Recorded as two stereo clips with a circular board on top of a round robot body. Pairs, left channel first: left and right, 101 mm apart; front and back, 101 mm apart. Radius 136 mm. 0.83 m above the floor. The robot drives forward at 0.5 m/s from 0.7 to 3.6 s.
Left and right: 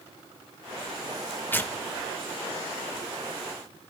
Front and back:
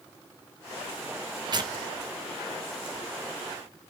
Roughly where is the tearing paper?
Behind left.